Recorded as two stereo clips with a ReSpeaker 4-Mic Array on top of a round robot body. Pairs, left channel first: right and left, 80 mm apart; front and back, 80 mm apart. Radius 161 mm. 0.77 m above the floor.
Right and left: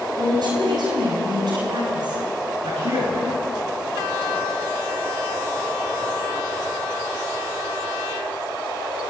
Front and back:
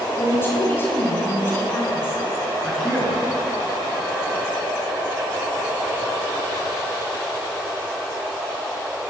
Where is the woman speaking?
60° left, 6 m.